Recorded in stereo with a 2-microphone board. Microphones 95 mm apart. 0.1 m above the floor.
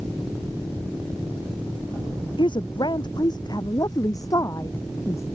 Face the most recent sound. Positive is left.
turn(degrees=30)  # may be behind; listen again after turning